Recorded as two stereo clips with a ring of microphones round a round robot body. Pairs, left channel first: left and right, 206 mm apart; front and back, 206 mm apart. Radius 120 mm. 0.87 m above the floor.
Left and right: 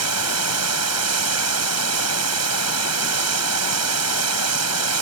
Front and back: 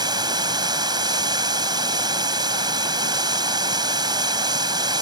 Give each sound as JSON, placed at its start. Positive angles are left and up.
{"t": 0.0, "sound": "running water", "azimuth_deg": -105}